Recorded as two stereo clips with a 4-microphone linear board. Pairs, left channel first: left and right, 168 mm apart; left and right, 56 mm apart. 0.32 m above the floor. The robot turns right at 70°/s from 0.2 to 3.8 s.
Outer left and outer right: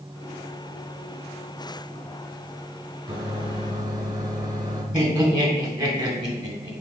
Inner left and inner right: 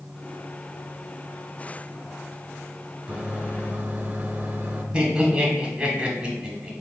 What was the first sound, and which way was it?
A microwave, 30° right (ahead or behind).